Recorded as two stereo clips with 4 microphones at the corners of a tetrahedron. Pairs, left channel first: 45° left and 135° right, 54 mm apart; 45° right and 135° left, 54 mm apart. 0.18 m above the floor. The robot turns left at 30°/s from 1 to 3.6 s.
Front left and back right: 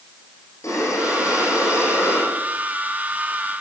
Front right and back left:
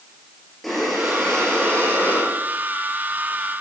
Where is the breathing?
45° left, 8 m; by 3.6 s 35° right, 8 m.